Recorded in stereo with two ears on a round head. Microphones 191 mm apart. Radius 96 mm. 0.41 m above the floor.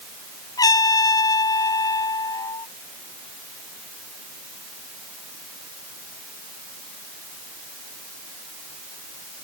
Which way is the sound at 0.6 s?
15° left (ahead or behind).